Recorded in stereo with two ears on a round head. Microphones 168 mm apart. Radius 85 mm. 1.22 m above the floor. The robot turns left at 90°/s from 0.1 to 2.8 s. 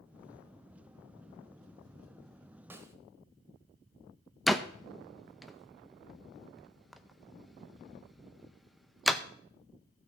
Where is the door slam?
Centre (ahead or behind), 0.5 m.